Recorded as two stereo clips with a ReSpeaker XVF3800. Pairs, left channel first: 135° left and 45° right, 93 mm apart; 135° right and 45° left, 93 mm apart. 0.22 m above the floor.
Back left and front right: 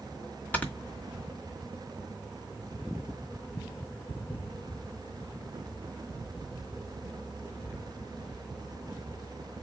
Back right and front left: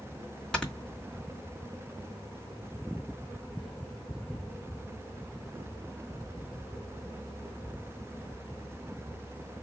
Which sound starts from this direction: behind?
Snoring, at 0.5 s.